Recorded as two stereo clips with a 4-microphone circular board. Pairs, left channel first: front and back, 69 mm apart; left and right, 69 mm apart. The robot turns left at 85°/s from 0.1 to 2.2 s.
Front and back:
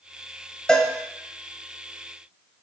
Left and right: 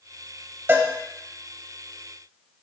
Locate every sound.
0.7 s a cowbell: 70° right, 0.8 m; by 0.9 s 85° right, 0.8 m